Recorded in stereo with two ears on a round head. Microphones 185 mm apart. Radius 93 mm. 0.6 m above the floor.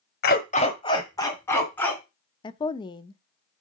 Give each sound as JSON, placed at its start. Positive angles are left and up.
{"t": 0.2, "sound": "a dog barking", "side_deg": 45, "distance_m": 1.0}
{"t": 2.4, "sound": "a woman speaking", "side_deg": 20, "distance_m": 0.6}